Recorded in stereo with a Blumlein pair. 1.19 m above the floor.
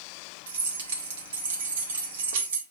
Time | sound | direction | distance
0.5 | keys jangling | 60° right | 1.8 m